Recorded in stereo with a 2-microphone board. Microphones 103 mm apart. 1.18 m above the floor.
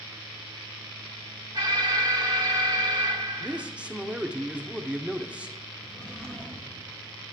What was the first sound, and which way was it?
An alarm, 45° right (ahead or behind).